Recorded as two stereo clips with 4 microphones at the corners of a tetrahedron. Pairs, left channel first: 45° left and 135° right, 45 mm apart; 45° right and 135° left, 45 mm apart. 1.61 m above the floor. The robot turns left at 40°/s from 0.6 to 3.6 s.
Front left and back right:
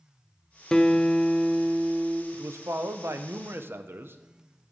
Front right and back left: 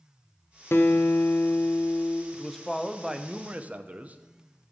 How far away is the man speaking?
About 0.5 m.